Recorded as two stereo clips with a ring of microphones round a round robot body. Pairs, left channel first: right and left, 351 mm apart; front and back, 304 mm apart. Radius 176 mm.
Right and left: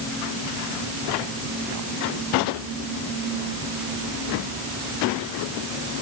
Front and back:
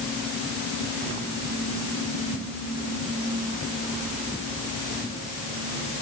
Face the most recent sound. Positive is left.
No sound to turn to.